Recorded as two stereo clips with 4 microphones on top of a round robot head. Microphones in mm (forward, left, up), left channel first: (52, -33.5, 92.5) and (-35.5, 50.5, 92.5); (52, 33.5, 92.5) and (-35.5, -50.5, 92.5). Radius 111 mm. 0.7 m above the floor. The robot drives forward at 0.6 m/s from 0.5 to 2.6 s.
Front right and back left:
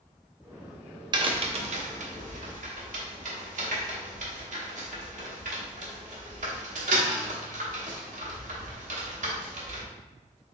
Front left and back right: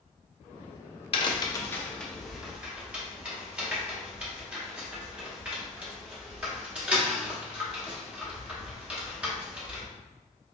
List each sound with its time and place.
1.1 s a crack: 85° left, 0.7 m; by 9.9 s 145° left, 1.1 m